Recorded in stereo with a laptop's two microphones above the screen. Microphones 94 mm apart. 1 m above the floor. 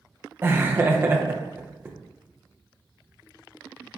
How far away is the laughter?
About 0.5 m.